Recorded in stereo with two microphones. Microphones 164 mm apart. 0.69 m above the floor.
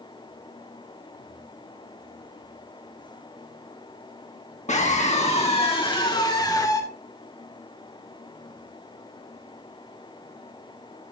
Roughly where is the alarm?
I don't hear an alarm.